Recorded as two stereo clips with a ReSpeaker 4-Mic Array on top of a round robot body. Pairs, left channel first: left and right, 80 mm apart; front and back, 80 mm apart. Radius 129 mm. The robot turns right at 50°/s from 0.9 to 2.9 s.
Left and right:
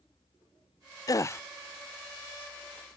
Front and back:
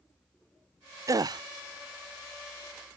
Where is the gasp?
135° left; by 1.4 s 150° left.